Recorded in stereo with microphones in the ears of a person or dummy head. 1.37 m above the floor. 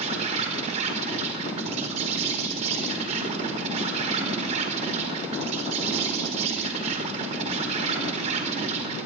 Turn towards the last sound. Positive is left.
turn(degrees=-40)  # may be behind; listen again after turning